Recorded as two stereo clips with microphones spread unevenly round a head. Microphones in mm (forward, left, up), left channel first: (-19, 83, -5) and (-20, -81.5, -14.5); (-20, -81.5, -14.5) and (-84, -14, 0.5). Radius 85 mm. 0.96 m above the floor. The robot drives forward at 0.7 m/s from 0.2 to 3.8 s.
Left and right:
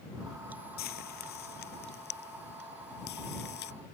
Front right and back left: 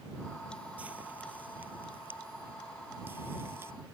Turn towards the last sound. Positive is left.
turn(degrees=55)